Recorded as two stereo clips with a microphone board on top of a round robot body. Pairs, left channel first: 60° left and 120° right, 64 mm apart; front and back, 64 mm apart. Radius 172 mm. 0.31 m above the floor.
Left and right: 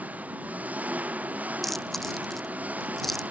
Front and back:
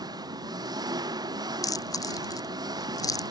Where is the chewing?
25° right.